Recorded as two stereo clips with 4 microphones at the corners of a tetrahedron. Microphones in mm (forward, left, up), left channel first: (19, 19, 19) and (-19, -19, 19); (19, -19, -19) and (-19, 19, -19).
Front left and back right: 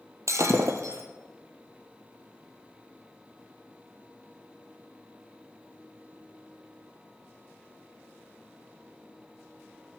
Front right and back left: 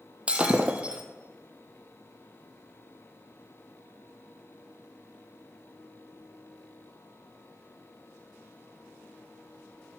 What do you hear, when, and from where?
0.3 s breaking glass: 155° right, 1.3 m